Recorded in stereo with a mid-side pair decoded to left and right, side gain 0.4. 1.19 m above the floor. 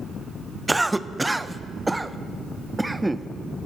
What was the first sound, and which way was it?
A cough, 15° right.